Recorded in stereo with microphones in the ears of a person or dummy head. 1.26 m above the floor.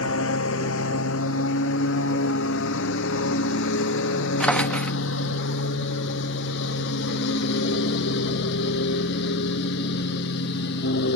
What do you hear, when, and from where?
0.0 s a lawn mower: 75° left (ahead or behind); by 11.2 s 60° left (ahead or behind)
4.4 s a drawer: 5° left (ahead or behind)